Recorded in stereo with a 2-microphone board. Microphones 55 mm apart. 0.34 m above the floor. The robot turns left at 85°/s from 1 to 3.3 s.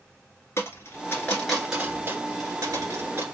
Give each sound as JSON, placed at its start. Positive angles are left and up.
{"t": 0.6, "sound": "a dropped coin", "side_deg": 45, "distance_m": 1.8}